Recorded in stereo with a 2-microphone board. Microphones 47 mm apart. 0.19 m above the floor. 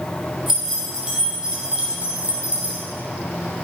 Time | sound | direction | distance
0.5 | keys jangling | 5° right (ahead or behind) | 4 m